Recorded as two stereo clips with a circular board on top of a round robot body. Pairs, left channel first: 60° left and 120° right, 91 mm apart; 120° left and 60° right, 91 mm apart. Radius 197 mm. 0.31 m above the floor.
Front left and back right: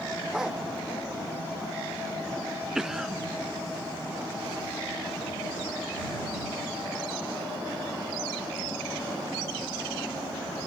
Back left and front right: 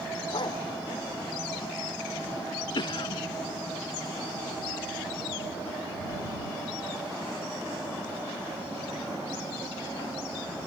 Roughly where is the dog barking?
Behind left.